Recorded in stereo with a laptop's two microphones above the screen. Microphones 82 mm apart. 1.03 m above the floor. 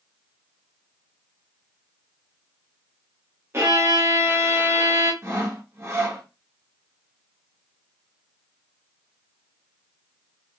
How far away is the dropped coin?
I don't hear a dropped coin.